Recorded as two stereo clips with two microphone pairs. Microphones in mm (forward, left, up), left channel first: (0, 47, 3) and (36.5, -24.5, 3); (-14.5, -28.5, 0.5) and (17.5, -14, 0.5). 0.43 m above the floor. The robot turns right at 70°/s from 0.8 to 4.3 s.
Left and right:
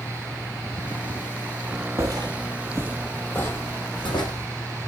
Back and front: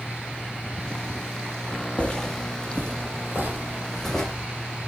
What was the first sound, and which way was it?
Footsteps, 110° right.